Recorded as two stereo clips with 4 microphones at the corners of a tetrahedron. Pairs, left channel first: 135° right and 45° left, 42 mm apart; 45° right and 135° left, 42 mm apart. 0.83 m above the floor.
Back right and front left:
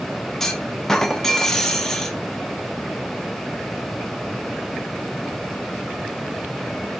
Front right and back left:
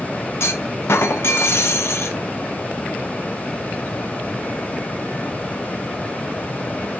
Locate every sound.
0.4 s a clunk: 55° right, 0.6 m